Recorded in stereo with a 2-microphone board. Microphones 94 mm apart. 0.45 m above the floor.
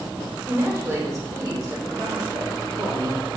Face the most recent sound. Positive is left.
turn(degrees=-60)  # may be behind; listen again after turning